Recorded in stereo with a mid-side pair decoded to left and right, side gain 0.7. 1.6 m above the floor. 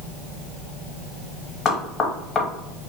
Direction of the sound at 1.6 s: 30° left.